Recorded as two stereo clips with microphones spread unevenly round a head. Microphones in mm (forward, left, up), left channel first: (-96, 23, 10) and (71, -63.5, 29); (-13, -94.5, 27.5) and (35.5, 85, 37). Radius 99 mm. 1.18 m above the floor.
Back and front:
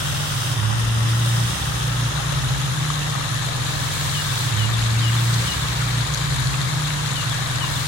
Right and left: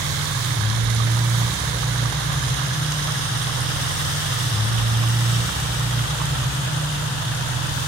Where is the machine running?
60° right, 1.9 m.